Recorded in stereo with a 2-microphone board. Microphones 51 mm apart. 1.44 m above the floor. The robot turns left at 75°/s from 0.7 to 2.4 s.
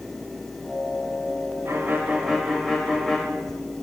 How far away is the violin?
About 1.0 m.